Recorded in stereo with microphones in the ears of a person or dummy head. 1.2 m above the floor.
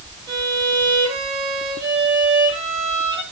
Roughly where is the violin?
Right.